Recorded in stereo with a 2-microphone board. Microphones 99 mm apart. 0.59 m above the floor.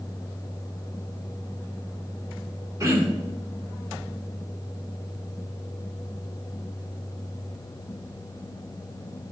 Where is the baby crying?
I don't hear a baby crying.